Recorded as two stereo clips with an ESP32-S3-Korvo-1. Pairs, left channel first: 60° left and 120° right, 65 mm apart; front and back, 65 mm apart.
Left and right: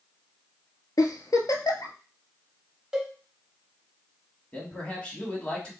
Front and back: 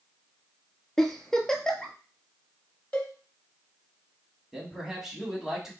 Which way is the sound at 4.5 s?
100° left.